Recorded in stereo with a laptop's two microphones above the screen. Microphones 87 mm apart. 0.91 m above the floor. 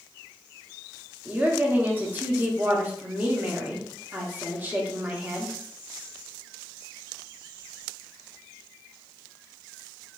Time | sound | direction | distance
1.2 | a woman speaking | 20° right (ahead or behind) | 1.0 m